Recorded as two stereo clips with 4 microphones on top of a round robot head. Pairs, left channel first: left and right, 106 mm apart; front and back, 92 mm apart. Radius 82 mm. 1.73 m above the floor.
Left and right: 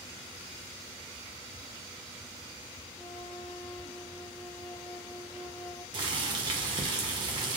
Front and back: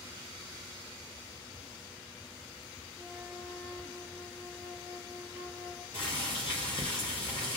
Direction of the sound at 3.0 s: 120° left.